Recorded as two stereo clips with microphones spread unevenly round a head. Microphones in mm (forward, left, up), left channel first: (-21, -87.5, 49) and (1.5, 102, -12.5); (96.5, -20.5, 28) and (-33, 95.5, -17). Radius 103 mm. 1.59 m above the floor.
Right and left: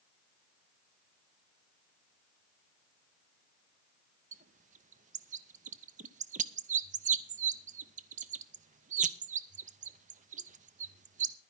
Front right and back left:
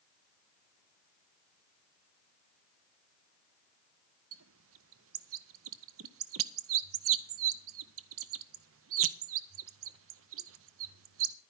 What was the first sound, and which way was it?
A bird, 140° left.